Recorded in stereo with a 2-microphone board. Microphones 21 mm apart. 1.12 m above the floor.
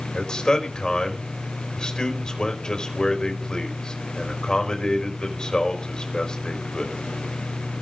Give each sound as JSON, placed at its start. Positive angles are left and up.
{"t": 0.1, "sound": "a man speaking", "side_deg": 40, "distance_m": 4.0}